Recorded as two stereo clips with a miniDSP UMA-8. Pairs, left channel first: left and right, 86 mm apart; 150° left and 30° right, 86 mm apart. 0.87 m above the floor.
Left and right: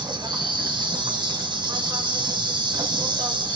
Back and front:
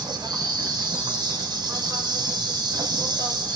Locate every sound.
0.0 s an insect: 60° right, 2 m